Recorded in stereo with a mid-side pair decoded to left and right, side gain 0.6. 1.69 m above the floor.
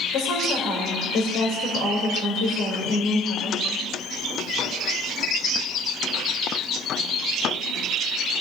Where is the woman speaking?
65° left, 3.5 m.